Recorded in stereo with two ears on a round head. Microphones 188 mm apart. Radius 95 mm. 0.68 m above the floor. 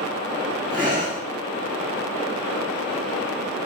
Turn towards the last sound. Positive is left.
turn(degrees=-20)  # may be behind; listen again after turning